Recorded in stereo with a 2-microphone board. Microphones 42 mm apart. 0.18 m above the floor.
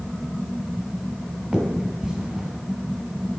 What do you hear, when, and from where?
1.5 s a finger snap: 10° right (ahead or behind), 1.5 m